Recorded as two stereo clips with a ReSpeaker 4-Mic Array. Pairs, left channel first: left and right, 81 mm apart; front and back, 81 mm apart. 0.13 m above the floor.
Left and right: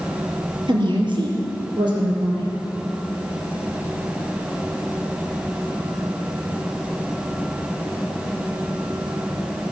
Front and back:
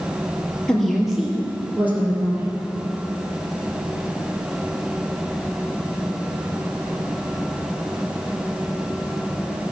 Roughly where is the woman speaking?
Right.